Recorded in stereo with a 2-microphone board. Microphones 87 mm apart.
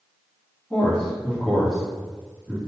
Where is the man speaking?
10° left (ahead or behind), 1.3 m.